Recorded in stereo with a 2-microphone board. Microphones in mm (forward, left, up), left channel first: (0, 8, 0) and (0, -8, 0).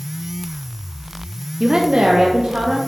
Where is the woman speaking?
25° right (ahead or behind), 0.7 m; by 2.8 s 80° right, 2 m.